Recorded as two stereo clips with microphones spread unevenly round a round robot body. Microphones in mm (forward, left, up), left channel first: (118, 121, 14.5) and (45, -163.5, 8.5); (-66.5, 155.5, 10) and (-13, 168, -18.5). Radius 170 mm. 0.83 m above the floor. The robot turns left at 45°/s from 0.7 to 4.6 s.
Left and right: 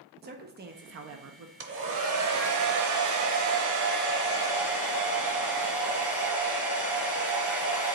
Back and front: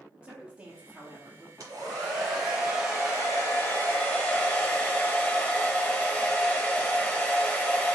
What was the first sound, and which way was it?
A woman speaking, 45° right.